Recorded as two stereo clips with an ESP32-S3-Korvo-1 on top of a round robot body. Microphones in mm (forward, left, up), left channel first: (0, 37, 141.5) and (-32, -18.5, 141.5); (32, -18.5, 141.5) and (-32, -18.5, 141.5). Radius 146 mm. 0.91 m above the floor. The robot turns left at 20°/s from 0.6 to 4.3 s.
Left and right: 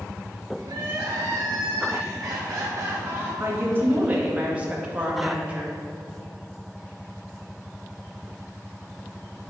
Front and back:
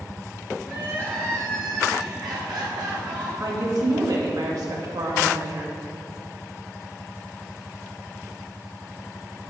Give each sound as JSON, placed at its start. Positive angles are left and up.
{"t": 0.6, "sound": "crying", "azimuth_deg": -120, "distance_m": 2.5}
{"t": 3.4, "sound": "a woman speaking", "azimuth_deg": -170, "distance_m": 1.9}